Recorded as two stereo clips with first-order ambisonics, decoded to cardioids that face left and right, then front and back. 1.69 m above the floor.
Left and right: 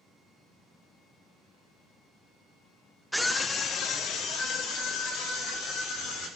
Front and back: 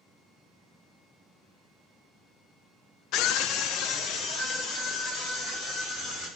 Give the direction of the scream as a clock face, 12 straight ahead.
12 o'clock.